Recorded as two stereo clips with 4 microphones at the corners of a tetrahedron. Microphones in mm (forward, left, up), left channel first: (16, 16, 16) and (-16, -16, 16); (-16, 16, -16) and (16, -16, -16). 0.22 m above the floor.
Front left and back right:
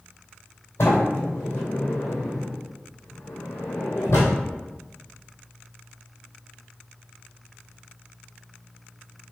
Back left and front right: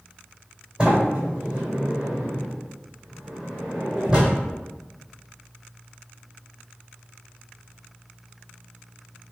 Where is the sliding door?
25° left, 1.7 m.